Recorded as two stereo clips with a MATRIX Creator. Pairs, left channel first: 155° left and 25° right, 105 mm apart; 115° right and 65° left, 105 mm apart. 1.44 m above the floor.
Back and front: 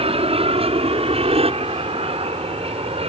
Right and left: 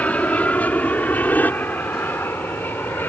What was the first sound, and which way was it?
An aircraft, 35° right.